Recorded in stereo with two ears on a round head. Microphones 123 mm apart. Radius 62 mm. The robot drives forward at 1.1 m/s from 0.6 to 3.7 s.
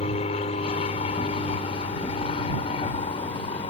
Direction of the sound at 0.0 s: 45° left (ahead or behind).